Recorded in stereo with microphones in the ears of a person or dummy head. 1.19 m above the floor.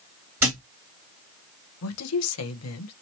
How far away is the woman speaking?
About 0.9 m.